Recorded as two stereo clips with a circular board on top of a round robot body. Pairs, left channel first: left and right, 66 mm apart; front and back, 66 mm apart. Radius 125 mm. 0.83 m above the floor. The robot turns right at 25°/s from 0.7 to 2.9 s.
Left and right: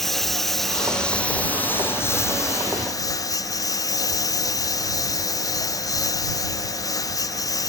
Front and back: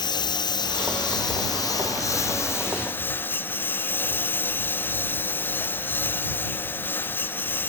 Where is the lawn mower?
5° left; by 7.7 s 60° left.